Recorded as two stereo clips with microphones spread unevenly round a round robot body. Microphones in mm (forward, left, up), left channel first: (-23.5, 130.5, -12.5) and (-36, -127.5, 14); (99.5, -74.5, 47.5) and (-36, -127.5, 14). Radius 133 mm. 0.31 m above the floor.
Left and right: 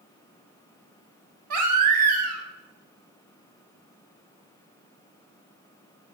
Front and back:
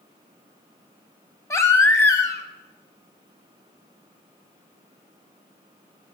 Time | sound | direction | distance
1.5 | a baby crying | 55° right | 1.1 m